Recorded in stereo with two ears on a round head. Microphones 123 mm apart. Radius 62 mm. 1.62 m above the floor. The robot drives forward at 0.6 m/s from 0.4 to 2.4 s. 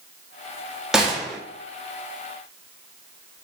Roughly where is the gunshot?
Centre.